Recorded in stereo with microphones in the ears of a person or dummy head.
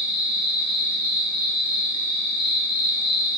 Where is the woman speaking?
I don't hear a woman speaking.